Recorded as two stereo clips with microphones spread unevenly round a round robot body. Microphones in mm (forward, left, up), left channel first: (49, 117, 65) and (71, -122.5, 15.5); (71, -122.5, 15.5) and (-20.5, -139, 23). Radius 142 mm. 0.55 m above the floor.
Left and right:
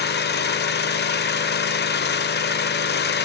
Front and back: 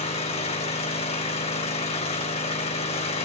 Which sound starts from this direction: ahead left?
An engine running, at 0.0 s.